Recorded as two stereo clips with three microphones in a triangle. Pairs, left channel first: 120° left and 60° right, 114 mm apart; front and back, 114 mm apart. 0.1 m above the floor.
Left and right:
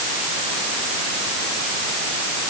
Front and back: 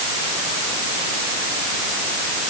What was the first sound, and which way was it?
Only background noise.